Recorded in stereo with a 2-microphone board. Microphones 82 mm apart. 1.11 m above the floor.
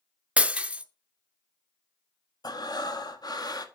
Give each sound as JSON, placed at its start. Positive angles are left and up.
{"t": 0.4, "sound": "breaking glass", "side_deg": -15, "distance_m": 0.7}
{"t": 2.4, "sound": "breathing", "side_deg": 55, "distance_m": 1.1}